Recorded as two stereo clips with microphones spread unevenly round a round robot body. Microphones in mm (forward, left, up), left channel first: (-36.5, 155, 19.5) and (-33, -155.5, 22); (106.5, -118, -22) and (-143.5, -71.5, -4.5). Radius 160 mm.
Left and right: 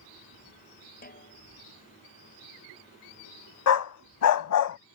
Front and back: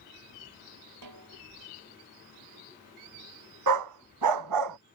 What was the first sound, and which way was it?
A snare drum, 155° left.